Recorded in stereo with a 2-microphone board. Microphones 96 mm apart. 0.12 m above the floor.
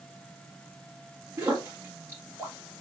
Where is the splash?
25° right (ahead or behind), 3 m.